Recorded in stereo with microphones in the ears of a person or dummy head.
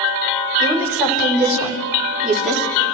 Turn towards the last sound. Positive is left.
turn(degrees=0)  # may be behind; listen again after turning